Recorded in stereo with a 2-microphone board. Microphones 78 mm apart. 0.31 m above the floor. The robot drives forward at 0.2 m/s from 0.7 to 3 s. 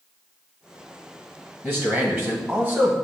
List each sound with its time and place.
1.6 s a man speaking: 25° right (ahead or behind), 1.4 m; by 2.9 s 30° right (ahead or behind), 1.2 m